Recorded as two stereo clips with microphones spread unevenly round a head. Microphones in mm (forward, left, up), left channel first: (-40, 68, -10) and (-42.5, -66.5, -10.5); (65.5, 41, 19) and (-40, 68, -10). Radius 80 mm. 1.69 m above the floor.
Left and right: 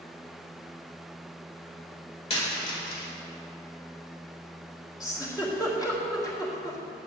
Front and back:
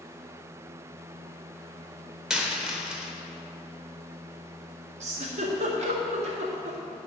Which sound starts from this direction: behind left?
A giggle, at 5.0 s.